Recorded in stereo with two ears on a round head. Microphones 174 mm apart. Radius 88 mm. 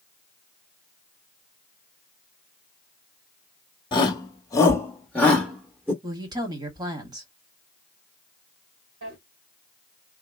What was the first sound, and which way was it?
A shout, 25° left (ahead or behind).